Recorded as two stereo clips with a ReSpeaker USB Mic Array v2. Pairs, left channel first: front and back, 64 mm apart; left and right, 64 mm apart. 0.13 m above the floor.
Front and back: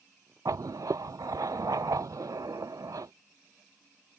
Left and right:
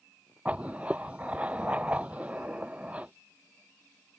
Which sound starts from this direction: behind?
Writing, at 0.5 s.